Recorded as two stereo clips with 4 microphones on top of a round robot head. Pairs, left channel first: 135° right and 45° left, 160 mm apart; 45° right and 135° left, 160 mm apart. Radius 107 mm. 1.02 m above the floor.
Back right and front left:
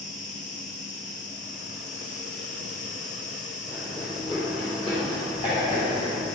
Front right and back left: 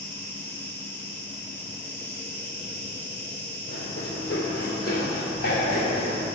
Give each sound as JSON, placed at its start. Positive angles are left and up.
{"t": 0.0, "sound": "an insect", "azimuth_deg": -120, "distance_m": 2.0}
{"t": 3.7, "sound": "running footsteps", "azimuth_deg": -65, "distance_m": 2.0}